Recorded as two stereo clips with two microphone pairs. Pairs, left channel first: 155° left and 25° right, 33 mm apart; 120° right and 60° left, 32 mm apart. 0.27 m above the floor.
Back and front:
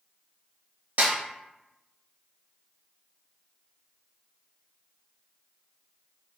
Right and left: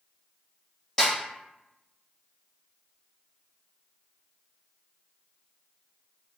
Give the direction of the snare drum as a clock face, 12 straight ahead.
2 o'clock.